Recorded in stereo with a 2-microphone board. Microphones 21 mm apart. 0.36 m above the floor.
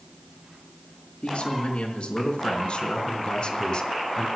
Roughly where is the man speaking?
Left.